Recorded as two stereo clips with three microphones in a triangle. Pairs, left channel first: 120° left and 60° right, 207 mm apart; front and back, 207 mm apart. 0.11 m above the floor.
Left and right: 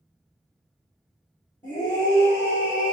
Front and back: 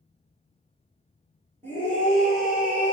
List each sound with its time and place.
1.6 s a scream: 55° right, 1.7 m; by 2.9 s 145° right, 1.6 m